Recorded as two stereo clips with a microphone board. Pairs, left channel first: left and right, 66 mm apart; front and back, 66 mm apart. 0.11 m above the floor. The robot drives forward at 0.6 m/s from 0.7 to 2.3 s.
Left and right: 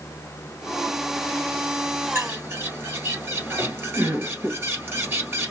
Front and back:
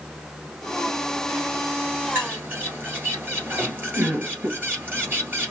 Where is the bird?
130° right, 1.9 m.